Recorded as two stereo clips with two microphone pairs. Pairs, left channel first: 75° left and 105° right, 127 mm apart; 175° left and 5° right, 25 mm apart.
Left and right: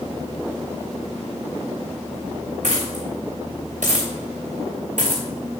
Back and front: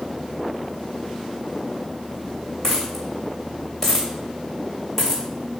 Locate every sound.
2.6 s a dropped coin: 110° right, 2.5 m